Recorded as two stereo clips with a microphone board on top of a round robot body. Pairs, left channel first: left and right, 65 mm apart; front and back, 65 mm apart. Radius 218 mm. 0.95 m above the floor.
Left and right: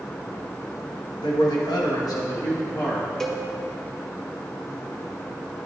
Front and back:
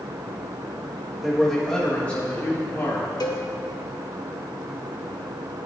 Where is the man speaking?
95° left, 1.4 m; by 3.1 s 50° left, 1.7 m.